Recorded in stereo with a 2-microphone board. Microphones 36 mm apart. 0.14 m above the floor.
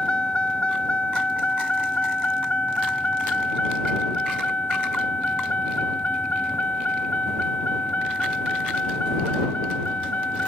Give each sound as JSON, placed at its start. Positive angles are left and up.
{"t": 0.0, "sound": "a vehicle", "side_deg": 30}